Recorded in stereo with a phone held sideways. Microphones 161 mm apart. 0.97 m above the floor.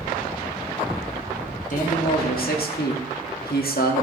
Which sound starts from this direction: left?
A man speaking, at 1.7 s.